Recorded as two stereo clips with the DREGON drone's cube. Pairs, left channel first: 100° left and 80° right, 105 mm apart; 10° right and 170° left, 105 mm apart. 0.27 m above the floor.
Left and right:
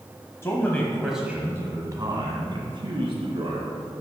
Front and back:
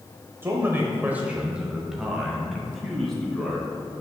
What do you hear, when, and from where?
0.4 s a man speaking: 125° left, 1.1 m; by 3.7 s 95° right, 2.5 m